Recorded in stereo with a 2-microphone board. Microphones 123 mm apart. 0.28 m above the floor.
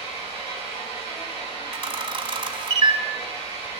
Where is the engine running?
50° left (ahead or behind), 7 m.